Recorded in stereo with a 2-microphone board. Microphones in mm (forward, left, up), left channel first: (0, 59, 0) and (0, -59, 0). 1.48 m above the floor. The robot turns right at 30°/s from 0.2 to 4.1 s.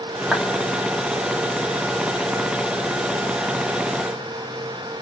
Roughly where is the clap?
Centre.